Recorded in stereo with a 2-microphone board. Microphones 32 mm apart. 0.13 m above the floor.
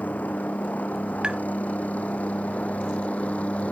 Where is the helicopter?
55° left (ahead or behind); by 3.7 s 45° left (ahead or behind).